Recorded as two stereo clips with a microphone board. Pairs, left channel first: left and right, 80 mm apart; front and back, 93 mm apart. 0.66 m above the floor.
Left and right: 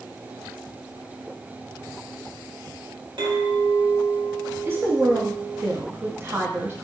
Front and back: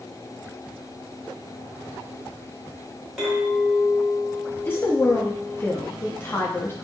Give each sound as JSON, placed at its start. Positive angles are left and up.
{"t": 3.2, "sound": "a clink", "azimuth_deg": -95, "distance_m": 1.4}
{"t": 4.7, "sound": "a woman speaking", "azimuth_deg": -50, "distance_m": 0.6}